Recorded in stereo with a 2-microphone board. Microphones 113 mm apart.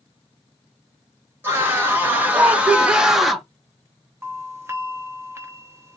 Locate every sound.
1.4 s a scream: 20° right (ahead or behind), 1.8 m; by 3.5 s centre (ahead or behind), 0.9 m
4.2 s a doorbell: 20° right (ahead or behind), 0.8 m